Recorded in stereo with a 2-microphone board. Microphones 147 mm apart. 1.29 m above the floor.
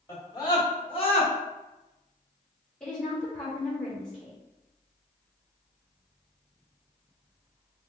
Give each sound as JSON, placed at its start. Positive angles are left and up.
{"t": 0.1, "sound": "a scream", "side_deg": 20, "distance_m": 1.9}
{"t": 2.8, "sound": "a woman speaking", "side_deg": 5, "distance_m": 1.7}